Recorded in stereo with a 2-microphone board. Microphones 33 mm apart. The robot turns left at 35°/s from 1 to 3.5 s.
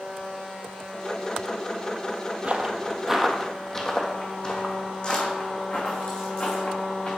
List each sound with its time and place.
2.4 s footsteps: 40° right (ahead or behind), 1.1 m; by 7.1 s 40° left (ahead or behind), 3.5 m